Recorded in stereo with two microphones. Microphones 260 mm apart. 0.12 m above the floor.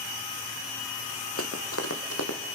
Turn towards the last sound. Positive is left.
turn(degrees=75)  # may be behind; listen again after turning